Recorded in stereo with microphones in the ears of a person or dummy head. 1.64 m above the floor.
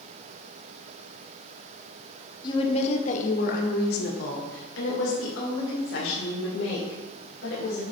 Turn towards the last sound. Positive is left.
turn(degrees=85)